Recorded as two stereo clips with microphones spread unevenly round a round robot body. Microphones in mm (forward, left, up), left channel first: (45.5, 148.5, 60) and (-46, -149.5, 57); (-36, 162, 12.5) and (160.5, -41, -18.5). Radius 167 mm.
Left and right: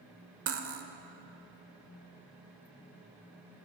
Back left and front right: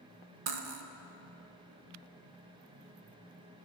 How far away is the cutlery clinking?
About 1.0 m.